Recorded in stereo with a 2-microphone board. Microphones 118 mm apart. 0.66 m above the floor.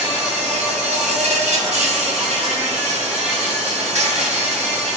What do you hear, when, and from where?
0.0 s an insect: 70° right (ahead or behind), 2 m